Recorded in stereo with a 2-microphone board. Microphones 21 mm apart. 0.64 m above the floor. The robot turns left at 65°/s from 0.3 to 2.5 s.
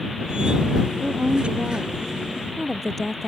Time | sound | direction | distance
1.0 | a woman speaking | 95° right | ?